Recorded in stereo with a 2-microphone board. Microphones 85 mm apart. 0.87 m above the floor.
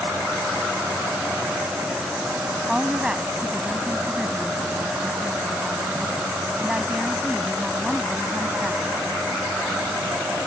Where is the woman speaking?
10° right (ahead or behind).